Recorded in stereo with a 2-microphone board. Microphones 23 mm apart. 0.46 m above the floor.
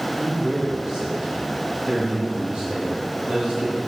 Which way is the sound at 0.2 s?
65° right (ahead or behind).